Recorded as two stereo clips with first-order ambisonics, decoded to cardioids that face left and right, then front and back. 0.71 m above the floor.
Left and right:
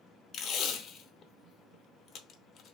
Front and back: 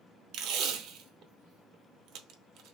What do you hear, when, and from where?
0.3 s tape being pulled: 150° left, 0.7 m